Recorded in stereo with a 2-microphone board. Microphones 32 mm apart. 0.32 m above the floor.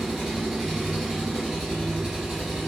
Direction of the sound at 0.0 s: 10° right (ahead or behind).